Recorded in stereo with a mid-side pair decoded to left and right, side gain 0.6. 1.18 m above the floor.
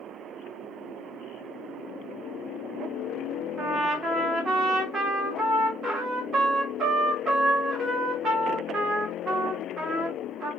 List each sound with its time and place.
3.6 s a trumpet: 40° right, 2.5 m